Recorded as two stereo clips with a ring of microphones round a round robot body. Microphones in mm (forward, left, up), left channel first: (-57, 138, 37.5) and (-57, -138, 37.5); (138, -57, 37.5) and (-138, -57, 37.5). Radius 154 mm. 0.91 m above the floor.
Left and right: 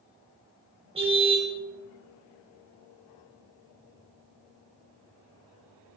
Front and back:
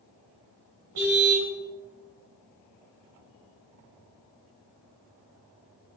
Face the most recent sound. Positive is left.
turn(degrees=-160)